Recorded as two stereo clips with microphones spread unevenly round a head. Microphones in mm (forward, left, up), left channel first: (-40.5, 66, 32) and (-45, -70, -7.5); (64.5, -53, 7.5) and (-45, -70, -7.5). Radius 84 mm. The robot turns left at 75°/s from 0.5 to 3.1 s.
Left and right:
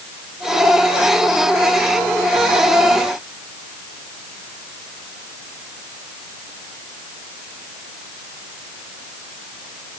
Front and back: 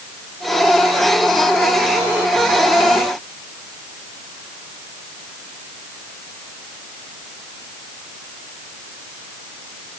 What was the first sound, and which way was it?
Only background noise.